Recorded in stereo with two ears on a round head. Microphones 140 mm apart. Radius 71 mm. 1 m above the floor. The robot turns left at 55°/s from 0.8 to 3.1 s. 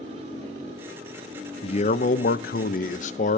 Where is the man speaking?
140° left, 0.6 m; by 3.4 s 55° left, 0.6 m.